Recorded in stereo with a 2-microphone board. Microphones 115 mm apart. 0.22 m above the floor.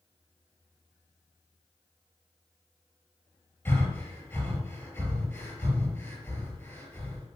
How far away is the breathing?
About 4 m.